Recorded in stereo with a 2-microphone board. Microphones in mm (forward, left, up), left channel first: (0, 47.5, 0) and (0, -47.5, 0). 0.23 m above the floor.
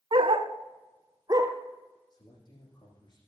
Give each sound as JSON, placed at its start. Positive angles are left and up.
{"t": 0.1, "sound": "a dog barking", "side_deg": -65, "distance_m": 0.8}
{"t": 2.1, "sound": "a man speaking", "side_deg": 50, "distance_m": 9.0}